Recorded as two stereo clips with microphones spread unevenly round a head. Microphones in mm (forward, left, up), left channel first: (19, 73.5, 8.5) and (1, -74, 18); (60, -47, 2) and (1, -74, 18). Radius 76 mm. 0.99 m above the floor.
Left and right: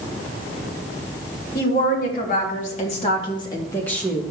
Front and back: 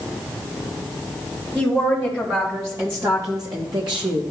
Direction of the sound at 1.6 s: 105° left.